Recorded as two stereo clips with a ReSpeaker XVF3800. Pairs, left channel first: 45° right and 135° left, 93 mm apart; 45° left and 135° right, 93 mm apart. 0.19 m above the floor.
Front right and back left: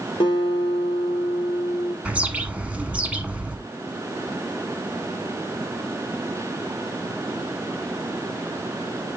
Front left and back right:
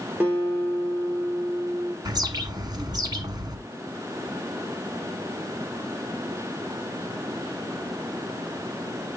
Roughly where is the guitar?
Ahead right.